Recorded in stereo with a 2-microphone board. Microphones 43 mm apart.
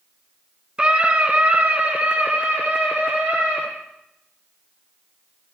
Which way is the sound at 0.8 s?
25° right (ahead or behind).